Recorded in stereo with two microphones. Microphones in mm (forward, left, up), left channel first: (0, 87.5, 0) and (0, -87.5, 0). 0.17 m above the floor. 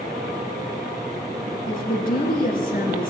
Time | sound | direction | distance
1.7 | a woman speaking | 55° left (ahead or behind) | 1.9 m